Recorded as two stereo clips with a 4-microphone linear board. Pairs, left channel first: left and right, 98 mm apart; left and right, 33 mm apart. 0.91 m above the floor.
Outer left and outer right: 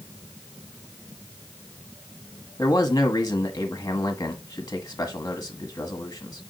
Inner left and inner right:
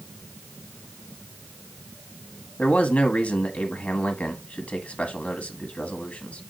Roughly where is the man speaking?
Left.